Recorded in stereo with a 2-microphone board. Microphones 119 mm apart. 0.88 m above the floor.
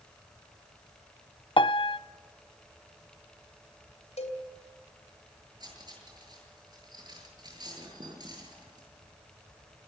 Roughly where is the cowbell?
Left.